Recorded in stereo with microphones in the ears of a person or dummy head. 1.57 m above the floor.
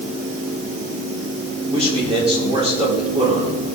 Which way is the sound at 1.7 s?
35° right (ahead or behind).